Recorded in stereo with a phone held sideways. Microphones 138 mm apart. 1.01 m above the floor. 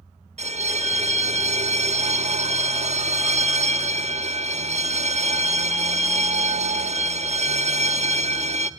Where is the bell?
55° right (ahead or behind), 0.7 m.